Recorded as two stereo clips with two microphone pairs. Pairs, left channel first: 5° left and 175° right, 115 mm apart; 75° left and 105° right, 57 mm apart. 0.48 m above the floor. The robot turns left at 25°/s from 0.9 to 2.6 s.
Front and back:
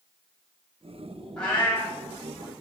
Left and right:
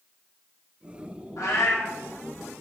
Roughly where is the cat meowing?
Left.